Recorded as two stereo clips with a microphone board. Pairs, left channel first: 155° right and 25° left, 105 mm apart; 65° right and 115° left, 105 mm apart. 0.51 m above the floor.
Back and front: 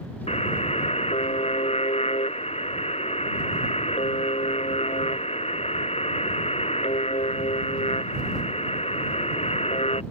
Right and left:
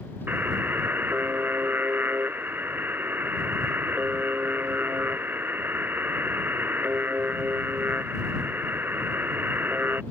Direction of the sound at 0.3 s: 175° right.